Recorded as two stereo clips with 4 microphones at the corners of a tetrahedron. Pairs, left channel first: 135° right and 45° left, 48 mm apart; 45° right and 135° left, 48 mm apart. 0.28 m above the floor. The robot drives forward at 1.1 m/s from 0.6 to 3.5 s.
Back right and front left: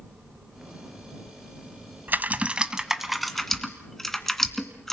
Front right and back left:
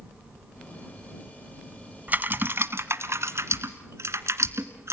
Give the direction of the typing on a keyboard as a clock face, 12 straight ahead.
9 o'clock.